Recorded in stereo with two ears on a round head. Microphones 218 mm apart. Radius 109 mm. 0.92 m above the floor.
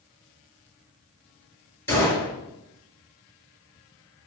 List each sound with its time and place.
1.9 s a gunshot: 10° left (ahead or behind), 4.5 m